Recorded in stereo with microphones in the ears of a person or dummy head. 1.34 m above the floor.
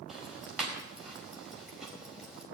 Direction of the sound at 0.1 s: 5° right (ahead or behind).